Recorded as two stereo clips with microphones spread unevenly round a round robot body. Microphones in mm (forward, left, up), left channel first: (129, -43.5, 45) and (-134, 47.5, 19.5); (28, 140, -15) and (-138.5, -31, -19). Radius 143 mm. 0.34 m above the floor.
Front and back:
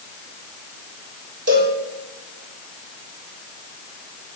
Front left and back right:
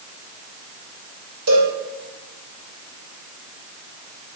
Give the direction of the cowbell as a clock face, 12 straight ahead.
5 o'clock.